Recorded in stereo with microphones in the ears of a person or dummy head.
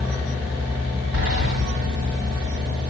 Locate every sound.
1.1 s a sliding door: 60° right (ahead or behind), 1.6 m